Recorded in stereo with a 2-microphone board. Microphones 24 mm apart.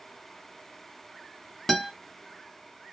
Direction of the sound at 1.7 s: 20° left (ahead or behind).